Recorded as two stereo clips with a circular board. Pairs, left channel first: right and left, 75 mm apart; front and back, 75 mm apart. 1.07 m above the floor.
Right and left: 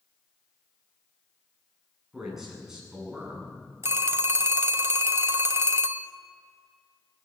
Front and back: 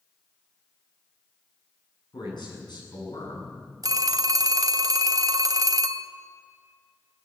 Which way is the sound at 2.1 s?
5° left.